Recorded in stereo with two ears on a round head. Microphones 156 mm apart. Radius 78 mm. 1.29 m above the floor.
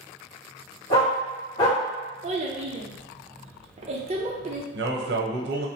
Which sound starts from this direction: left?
A dog barking, at 0.9 s.